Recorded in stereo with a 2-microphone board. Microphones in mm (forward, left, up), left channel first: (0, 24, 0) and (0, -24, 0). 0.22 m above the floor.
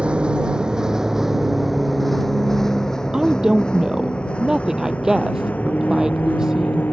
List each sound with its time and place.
0.0 s a vehicle: 20° right (ahead or behind); by 6.9 s 40° left (ahead or behind)
3.1 s a woman speaking: 10° right (ahead or behind)